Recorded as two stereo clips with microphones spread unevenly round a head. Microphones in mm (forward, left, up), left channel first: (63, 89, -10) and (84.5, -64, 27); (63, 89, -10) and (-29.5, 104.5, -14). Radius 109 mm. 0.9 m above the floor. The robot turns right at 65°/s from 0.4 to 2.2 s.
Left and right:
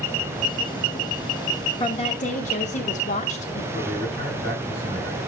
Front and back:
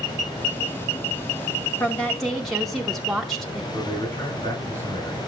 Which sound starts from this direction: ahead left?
A woman speaking, at 1.8 s.